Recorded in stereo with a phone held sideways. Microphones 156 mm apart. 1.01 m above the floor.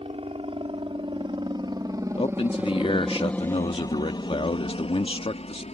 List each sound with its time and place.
0.0 s a helicopter: 40° right (ahead or behind); by 5.7 s 45° left (ahead or behind)
2.2 s a man speaking: 40° left (ahead or behind)